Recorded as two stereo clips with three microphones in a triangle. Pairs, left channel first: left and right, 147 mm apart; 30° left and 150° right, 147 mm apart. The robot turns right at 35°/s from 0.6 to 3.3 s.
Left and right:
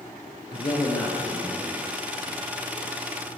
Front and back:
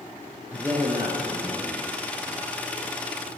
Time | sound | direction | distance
0.5 | a man speaking | 135° left | 1.7 m